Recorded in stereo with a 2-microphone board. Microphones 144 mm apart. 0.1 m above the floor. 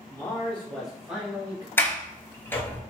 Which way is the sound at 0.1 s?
20° left (ahead or behind).